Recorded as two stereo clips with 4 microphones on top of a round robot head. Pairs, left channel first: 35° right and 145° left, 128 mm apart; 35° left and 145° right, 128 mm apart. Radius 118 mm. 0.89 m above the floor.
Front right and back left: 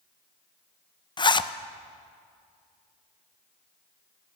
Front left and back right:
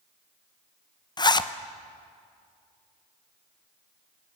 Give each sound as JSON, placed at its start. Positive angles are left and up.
{"t": 1.2, "sound": "a zipper", "azimuth_deg": -5, "distance_m": 0.9}